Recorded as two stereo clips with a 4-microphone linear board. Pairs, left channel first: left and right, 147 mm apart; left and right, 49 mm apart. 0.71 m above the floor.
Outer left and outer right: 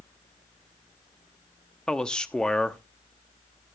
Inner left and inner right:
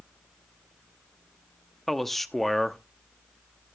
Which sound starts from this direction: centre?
A man speaking, at 1.9 s.